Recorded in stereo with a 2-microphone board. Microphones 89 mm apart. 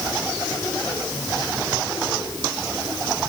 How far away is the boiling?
No boiling in this recording.